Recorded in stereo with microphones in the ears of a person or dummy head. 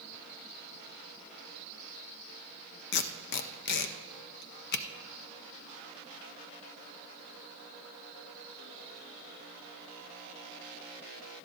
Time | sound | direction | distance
2.9 | tape being pulled | 60° left (ahead or behind) | 0.6 m